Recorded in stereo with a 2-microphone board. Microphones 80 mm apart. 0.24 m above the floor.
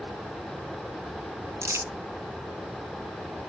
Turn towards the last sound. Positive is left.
turn(degrees=-35)  # may be behind; listen again after turning